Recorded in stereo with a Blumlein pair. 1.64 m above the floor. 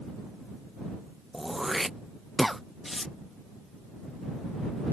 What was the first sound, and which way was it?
Throat clearing, straight ahead.